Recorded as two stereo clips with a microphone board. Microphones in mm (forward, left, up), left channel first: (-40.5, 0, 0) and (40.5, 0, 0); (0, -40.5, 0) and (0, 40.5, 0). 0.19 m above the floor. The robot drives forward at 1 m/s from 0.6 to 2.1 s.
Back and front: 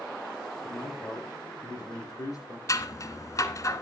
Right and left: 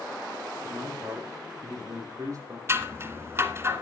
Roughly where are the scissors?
Behind left.